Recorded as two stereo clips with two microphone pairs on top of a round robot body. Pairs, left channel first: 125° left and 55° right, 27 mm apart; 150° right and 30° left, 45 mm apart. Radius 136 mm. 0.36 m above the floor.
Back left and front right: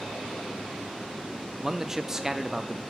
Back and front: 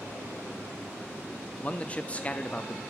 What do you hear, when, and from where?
1.6 s a man speaking: 125° right, 0.9 m